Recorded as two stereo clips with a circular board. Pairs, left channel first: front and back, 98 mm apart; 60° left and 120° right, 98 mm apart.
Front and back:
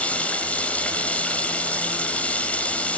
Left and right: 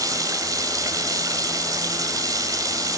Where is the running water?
75° right, 1.7 m.